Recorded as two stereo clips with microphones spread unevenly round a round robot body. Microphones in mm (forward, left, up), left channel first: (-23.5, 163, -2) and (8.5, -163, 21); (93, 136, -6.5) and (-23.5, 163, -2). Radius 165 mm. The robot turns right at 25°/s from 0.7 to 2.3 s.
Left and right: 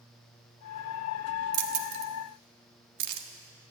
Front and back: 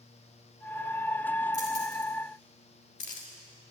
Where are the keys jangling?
65° right, 1.6 m; by 3.7 s 45° right, 1.6 m.